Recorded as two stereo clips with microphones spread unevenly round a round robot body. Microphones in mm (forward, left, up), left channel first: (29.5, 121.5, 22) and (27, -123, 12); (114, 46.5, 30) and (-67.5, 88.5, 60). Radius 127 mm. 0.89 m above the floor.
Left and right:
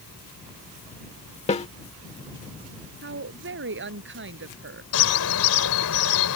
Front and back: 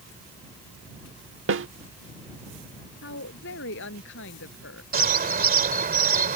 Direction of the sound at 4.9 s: 125° left.